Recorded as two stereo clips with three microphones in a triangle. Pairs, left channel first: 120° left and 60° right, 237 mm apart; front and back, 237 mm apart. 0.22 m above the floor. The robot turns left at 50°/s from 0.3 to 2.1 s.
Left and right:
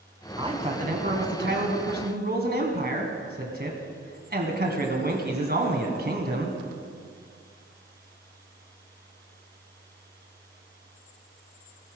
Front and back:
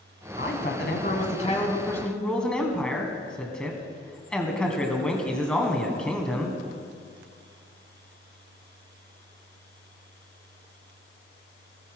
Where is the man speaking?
Straight ahead, 2 m; by 6.6 s 85° right, 2 m.